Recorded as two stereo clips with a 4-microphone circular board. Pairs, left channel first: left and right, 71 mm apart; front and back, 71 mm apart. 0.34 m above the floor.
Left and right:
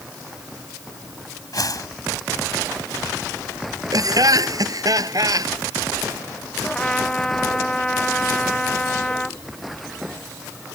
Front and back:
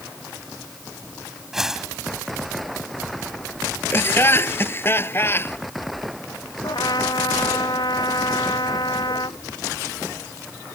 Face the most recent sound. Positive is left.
turn(degrees=15)